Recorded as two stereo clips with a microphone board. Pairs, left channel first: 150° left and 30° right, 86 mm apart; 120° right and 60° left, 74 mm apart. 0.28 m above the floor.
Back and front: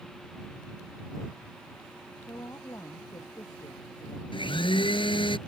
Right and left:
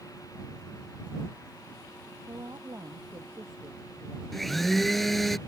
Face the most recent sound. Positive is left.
turn(degrees=150)